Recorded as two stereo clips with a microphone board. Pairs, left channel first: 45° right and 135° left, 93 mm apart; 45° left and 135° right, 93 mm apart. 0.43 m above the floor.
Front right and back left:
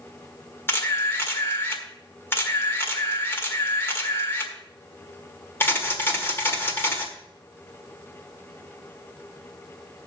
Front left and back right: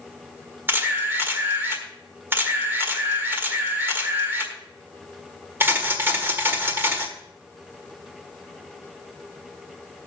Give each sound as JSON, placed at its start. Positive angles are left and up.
{"t": 0.7, "sound": "a camera shutter", "azimuth_deg": -90, "distance_m": 1.5}